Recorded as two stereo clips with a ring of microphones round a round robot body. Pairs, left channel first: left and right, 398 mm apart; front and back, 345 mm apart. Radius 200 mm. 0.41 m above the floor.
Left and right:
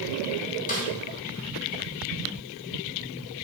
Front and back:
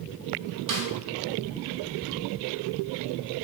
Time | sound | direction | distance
0.7 | a snare drum | 160° left | 2 m